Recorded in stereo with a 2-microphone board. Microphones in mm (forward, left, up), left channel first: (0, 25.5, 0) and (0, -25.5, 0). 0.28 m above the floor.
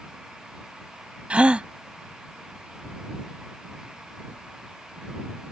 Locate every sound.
1.3 s a gasp: 25° right (ahead or behind)